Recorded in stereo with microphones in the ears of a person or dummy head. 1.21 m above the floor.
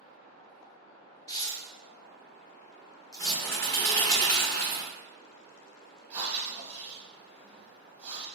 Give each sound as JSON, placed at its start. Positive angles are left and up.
{"t": 1.3, "sound": "tearing paper", "side_deg": 15, "distance_m": 0.7}
{"t": 3.2, "sound": "a bird", "side_deg": 15, "distance_m": 0.7}
{"t": 6.1, "sound": "breathing", "side_deg": -10, "distance_m": 0.8}